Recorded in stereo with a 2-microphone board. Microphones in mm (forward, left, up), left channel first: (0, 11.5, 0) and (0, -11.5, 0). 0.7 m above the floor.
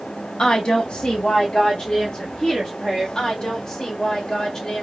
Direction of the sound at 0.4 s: 35° left (ahead or behind).